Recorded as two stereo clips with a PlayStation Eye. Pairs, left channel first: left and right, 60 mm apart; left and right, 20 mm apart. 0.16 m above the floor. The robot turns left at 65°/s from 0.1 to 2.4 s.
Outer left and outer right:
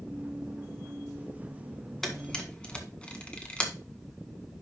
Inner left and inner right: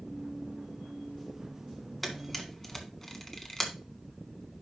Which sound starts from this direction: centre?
A camera shutter, at 2.0 s.